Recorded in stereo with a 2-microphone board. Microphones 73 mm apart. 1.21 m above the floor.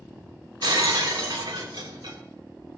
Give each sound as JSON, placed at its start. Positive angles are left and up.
{"t": 0.6, "sound": "breaking glass", "side_deg": -80, "distance_m": 3.0}